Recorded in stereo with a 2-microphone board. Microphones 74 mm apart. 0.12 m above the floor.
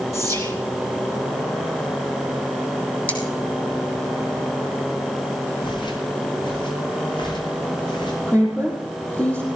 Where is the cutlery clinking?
20° left (ahead or behind), 3 m.